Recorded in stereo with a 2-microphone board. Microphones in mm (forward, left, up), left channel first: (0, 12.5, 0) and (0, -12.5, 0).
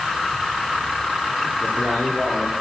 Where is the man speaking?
80° right, 9.5 m.